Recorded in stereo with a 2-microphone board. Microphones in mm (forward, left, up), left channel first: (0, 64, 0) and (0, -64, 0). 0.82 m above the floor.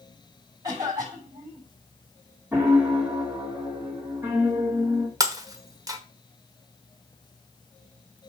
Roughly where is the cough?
Right.